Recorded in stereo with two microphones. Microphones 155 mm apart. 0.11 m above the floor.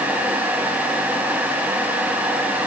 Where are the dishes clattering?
I don't hear dishes clattering.